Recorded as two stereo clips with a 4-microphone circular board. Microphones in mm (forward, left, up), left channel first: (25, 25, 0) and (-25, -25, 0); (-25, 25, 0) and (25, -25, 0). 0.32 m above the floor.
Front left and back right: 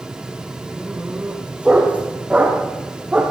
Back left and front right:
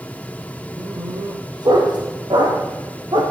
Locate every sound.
0.8 s a dog barking: 60° right, 6.5 m